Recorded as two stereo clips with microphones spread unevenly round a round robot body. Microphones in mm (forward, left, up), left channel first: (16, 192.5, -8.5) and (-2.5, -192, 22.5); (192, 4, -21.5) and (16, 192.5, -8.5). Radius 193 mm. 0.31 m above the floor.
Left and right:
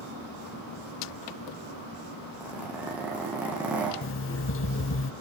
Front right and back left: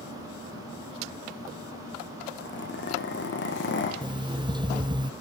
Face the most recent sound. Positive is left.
turn(degrees=65)